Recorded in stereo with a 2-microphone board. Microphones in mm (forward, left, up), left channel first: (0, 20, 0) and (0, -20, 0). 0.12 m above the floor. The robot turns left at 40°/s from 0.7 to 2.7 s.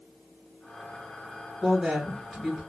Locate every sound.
1.6 s a woman speaking: 155° right, 2 m; by 2.6 s 165° left, 2 m